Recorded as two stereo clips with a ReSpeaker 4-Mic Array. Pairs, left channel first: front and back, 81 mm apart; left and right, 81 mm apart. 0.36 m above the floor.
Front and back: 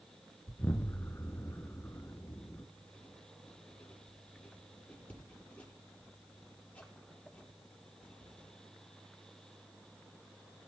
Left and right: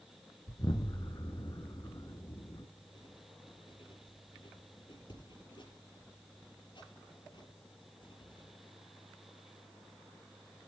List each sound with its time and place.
0.5 s an explosion: 60° left, 1.6 m
2.8 s writing: 75° left, 6.5 m